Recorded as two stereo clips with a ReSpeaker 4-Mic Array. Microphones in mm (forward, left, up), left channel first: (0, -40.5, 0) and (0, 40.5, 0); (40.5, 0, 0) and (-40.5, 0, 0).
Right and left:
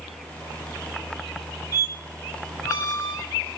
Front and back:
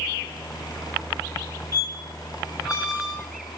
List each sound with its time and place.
1.7 s a squeak: 45° right, 2 m